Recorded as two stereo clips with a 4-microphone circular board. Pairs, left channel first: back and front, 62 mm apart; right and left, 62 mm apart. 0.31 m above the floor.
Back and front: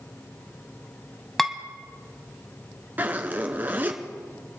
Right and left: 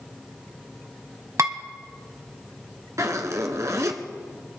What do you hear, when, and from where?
1.4 s dishes clattering: 90° left, 1.3 m
3.0 s a zipper: 60° left, 1.5 m